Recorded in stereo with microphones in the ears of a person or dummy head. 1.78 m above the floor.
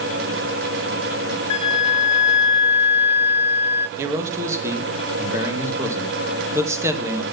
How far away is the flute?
About 1.2 m.